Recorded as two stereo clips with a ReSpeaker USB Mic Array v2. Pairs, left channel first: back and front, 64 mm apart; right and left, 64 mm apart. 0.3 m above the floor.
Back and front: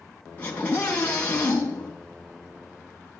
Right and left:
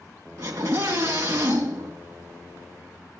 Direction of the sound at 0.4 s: 115° left.